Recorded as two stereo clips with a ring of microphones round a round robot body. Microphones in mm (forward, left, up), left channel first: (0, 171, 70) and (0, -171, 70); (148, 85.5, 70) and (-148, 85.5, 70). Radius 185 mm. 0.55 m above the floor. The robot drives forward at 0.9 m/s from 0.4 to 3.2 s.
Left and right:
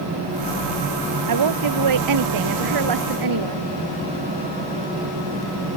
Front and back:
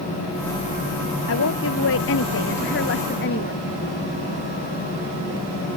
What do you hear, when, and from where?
1.3 s a woman speaking: 55° right; by 3.7 s 60° right